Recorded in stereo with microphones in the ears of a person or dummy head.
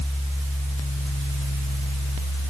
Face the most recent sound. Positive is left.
No sound to turn to.